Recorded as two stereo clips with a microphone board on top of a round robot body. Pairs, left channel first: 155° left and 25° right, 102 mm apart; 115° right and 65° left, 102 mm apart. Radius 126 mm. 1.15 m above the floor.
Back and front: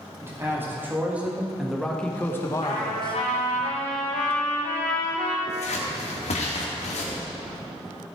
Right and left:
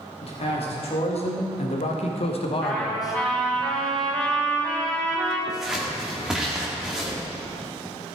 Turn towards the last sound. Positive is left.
turn(degrees=155)